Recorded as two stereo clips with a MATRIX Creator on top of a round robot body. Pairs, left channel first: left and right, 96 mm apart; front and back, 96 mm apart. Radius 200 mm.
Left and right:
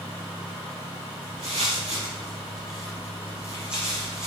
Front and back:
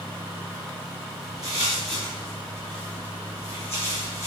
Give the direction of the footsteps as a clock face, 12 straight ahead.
5 o'clock.